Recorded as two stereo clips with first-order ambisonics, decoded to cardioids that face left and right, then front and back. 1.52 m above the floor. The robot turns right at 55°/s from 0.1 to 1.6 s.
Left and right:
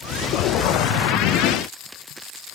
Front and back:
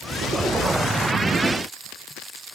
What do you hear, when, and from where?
Only background noise.